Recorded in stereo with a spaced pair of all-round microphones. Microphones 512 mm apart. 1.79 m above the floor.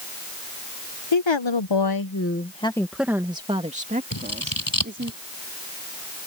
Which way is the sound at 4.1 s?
40° left (ahead or behind).